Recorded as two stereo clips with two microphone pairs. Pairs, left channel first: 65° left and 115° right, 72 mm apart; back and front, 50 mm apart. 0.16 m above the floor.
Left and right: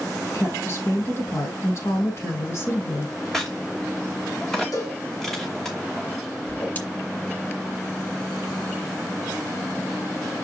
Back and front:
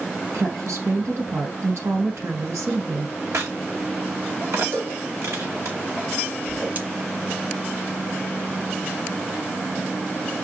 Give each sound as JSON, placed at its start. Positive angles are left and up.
{"t": 0.3, "sound": "a woman speaking", "azimuth_deg": 15, "distance_m": 4.0}
{"t": 3.3, "sound": "a crack", "azimuth_deg": -20, "distance_m": 2.5}
{"t": 4.7, "sound": "a cowbell", "azimuth_deg": 30, "distance_m": 6.0}
{"t": 6.5, "sound": "a whoosh", "azimuth_deg": 20, "distance_m": 1.9}